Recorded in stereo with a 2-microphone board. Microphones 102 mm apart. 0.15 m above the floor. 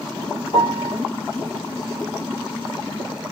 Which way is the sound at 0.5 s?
70° left (ahead or behind).